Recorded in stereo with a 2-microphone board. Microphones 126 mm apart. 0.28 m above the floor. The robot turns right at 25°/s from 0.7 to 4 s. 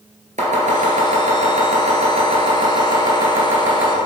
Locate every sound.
0.4 s chopping: 80° right, 1.9 m; by 3.9 s 10° right (ahead or behind), 1.9 m